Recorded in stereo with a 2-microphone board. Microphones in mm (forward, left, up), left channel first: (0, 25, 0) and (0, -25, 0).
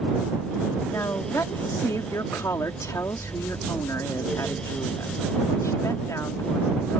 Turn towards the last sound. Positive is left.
turn(degrees=85)